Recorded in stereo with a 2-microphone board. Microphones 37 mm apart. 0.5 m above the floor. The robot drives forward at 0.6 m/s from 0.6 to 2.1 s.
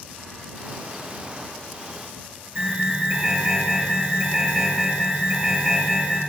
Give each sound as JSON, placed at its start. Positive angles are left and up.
{"t": 2.5, "sound": "an alarm", "side_deg": -30, "distance_m": 8.5}